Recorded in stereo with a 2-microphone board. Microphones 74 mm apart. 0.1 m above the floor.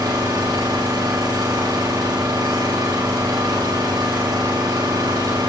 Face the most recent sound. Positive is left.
turn(degrees=-60)  # may be behind; listen again after turning